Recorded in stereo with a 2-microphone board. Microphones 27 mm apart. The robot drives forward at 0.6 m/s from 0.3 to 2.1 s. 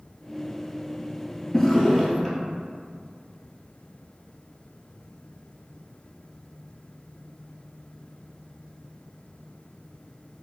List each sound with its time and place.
1.5 s a drawer: 15° left (ahead or behind), 0.6 m; by 2.4 s 10° left (ahead or behind), 0.8 m